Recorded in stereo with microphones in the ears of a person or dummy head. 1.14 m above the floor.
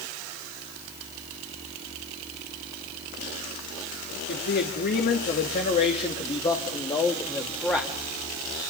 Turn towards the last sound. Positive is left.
turn(degrees=5)  # may be behind; listen again after turning